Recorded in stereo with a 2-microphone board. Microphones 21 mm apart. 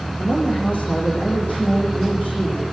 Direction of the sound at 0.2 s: 80° left.